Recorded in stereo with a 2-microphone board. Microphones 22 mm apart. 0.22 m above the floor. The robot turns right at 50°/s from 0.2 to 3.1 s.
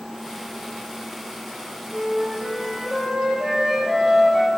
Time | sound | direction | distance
1.9 | a flute | 135° left | 3.5 m